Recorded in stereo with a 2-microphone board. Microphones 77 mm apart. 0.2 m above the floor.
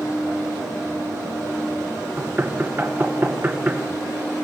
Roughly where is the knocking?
Right.